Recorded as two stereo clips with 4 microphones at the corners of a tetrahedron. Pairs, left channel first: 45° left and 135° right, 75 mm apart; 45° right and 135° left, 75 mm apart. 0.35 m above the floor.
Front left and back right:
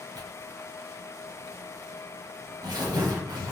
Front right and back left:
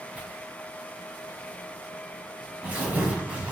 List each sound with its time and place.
0.1 s tearing paper: 155° right, 1.0 m